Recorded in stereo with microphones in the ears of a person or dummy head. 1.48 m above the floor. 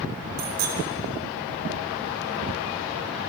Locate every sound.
0.4 s a bicycle bell: 50° right (ahead or behind), 4.5 m